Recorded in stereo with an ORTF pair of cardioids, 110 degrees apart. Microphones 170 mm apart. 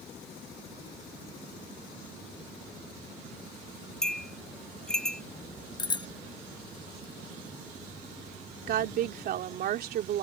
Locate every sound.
4.0 s a bell: 5° left
5.8 s a bicycle bell: 25° left
8.7 s a woman speaking: 60° right